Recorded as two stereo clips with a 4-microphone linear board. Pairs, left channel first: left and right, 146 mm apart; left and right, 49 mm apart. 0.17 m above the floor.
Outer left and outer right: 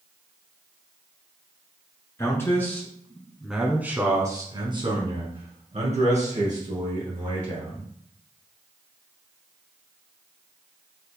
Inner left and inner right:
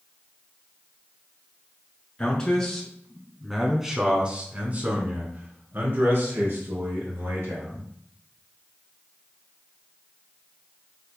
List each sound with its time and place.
2.2 s a man speaking: 20° left (ahead or behind), 1.8 m; by 7.9 s 65° right (ahead or behind), 3 m